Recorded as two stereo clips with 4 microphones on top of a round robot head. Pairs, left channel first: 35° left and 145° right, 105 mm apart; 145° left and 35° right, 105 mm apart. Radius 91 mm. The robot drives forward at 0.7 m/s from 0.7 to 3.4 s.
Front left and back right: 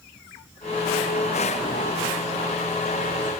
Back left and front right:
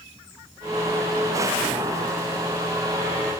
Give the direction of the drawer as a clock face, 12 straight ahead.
I don't hear a drawer.